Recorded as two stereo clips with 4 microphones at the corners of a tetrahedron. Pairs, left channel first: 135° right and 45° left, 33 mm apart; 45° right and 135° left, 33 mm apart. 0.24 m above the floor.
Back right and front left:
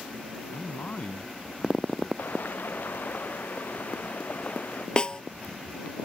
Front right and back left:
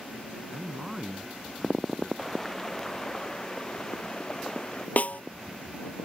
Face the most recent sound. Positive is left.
turn(degrees=-80)